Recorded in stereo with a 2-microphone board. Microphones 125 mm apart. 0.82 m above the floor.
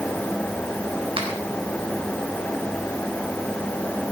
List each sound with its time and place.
1.2 s a finger snap: 50° right (ahead or behind), 4 m